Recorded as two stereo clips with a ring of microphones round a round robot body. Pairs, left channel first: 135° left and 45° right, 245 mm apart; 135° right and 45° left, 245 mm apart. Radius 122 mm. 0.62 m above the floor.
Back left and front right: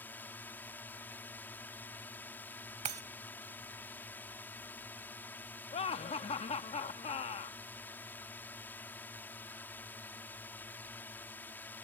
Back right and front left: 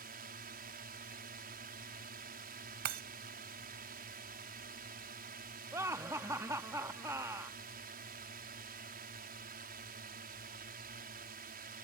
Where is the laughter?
110° left.